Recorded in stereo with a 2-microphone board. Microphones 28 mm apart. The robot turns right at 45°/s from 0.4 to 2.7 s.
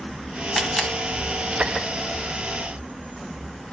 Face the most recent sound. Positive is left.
turn(degrees=75)  # may be behind; listen again after turning